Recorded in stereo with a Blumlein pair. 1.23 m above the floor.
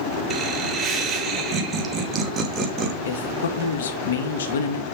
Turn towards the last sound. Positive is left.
turn(degrees=60)